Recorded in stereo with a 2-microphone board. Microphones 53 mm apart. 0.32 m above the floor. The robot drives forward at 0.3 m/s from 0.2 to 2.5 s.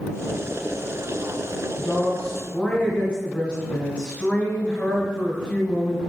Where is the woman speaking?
25° left (ahead or behind), 1.2 m.